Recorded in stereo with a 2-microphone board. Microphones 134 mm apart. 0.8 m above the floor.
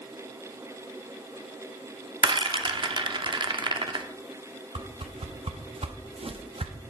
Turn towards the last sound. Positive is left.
turn(degrees=-45)  # may be behind; listen again after turning